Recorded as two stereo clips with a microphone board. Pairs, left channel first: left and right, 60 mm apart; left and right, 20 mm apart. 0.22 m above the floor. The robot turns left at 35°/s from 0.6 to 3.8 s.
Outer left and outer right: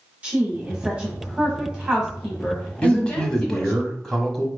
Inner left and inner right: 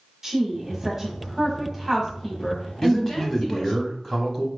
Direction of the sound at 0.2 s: 25° right (ahead or behind).